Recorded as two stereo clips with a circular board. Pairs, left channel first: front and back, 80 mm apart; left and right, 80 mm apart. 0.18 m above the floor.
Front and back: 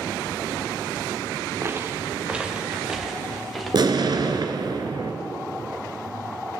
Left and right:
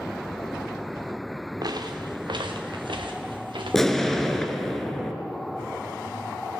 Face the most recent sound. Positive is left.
turn(degrees=175)